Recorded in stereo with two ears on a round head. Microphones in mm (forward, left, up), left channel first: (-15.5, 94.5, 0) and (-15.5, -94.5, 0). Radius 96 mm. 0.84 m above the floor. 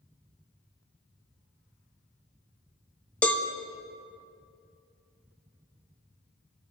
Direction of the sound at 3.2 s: 5° left (ahead or behind).